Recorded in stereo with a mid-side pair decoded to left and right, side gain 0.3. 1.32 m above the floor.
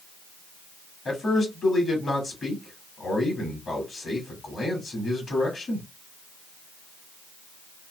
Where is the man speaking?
60° left, 2.5 m.